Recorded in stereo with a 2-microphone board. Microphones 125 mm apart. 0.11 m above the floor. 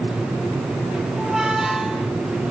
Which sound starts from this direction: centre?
A squeak, at 1.2 s.